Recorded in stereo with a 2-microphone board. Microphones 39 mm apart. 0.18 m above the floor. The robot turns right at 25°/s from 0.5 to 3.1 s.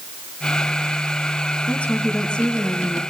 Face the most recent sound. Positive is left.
turn(degrees=165)